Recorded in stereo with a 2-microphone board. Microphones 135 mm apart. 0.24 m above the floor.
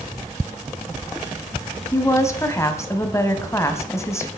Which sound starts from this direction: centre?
A woman speaking, at 1.9 s.